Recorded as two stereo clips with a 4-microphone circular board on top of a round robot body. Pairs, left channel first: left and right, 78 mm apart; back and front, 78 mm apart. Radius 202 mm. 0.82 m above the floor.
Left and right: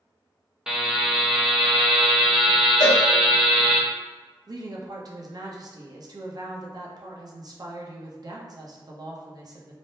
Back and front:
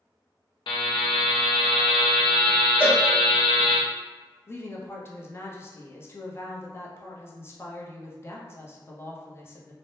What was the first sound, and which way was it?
A buzzer, 170° right.